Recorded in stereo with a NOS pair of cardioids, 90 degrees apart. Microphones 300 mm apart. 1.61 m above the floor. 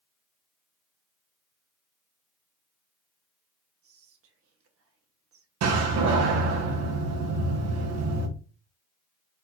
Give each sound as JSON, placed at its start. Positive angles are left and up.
{"t": 3.8, "sound": "whispering", "azimuth_deg": -55, "distance_m": 1.2}
{"t": 5.6, "sound": "a door slam", "azimuth_deg": -65, "distance_m": 1.2}